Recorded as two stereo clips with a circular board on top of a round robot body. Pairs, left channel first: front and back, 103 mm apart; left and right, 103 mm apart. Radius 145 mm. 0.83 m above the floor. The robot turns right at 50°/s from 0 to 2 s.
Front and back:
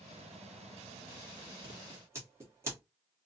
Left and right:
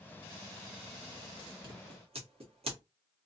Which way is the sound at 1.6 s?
135° right.